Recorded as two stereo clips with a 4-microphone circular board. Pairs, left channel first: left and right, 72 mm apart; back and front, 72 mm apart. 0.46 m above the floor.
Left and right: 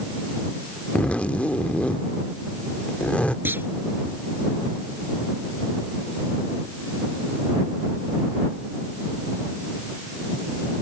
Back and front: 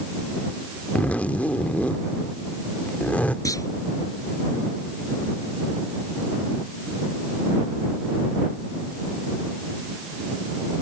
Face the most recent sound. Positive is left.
turn(degrees=-150)